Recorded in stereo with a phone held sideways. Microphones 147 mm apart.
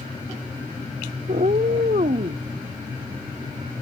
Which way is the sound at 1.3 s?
70° right (ahead or behind).